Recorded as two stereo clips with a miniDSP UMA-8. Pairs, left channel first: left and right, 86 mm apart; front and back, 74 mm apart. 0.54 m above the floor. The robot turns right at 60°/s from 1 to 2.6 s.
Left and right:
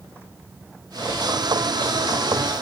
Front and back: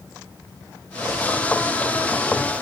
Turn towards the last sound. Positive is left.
No sound to turn to.